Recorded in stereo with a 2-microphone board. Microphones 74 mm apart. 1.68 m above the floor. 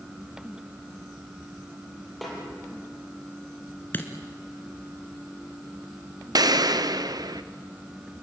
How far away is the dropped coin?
About 2.5 m.